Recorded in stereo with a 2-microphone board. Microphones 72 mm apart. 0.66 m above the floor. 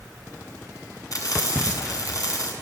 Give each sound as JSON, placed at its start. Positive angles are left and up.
{"t": 1.1, "sound": "frying", "side_deg": 55, "distance_m": 6.0}